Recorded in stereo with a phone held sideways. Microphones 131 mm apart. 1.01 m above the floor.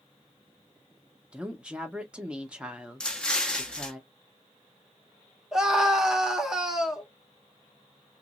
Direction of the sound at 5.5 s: 5° right (ahead or behind).